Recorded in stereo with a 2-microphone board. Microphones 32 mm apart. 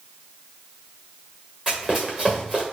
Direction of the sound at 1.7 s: 5° right (ahead or behind).